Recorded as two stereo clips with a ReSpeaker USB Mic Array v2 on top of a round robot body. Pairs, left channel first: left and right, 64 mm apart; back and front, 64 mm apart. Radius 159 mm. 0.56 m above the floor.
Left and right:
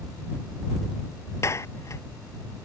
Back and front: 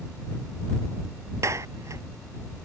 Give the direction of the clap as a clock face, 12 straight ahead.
11 o'clock.